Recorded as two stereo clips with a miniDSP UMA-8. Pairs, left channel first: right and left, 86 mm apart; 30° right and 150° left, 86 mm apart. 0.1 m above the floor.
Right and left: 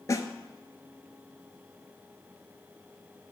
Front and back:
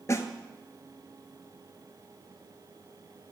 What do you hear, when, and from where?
0.1 s a snare drum: 65° right, 0.6 m